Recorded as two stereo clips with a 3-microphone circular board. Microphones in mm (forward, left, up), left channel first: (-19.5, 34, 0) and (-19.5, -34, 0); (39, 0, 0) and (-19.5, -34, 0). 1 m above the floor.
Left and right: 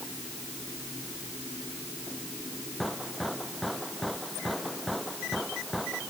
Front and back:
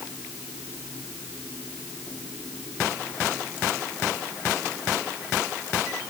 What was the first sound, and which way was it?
Only background noise.